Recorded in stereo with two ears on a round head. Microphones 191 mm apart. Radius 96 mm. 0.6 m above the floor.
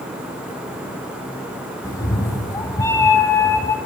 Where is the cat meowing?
15° left (ahead or behind), 0.7 m.